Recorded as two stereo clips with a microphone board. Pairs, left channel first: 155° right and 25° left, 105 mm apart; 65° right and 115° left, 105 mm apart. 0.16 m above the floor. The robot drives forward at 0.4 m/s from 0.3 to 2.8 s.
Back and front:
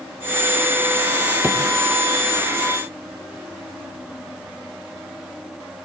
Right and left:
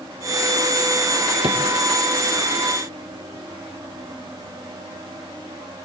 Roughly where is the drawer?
Left.